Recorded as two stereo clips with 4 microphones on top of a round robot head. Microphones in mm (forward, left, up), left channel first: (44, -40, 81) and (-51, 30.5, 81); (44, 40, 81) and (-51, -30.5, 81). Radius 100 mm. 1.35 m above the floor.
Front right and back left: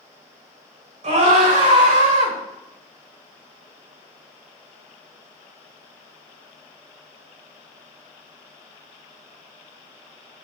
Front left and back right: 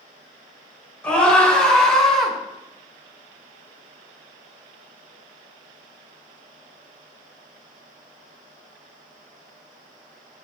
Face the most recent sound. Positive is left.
turn(degrees=125)